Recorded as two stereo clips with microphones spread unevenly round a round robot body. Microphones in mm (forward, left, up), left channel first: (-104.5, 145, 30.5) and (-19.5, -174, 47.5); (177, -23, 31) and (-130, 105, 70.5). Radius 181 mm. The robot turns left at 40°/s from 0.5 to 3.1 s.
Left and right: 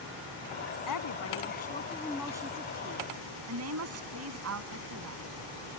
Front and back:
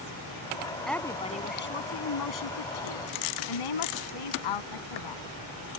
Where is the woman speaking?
65° left; by 5.2 s 25° right.